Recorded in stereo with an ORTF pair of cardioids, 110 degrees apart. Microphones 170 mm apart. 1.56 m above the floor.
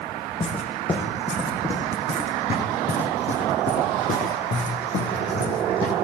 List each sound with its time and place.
0.4 s footsteps: 30° left, 6 m; by 6.0 s 60° left, 5 m